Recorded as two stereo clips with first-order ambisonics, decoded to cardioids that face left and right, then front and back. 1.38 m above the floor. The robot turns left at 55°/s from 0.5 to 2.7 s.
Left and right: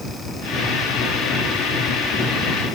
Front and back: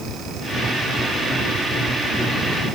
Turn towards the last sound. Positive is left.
No sound to turn to.